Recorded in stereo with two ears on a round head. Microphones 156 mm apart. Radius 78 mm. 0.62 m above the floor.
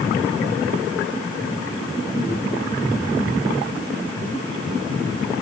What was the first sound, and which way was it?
Only background noise.